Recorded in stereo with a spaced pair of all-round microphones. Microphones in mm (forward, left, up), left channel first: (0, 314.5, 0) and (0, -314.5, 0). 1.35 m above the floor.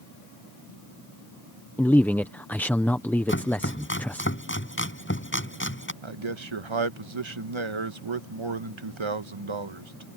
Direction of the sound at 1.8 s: 5° left (ahead or behind).